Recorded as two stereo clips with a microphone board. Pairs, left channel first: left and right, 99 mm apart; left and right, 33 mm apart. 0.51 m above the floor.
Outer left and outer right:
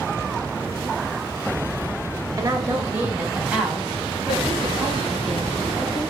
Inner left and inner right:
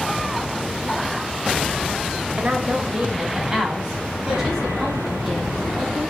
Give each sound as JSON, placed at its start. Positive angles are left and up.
{"t": 2.4, "sound": "a woman speaking", "side_deg": -35, "distance_m": 1.9}